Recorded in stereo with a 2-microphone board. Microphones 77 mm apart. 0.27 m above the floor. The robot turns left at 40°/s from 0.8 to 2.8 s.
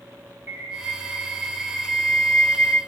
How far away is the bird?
About 2 m.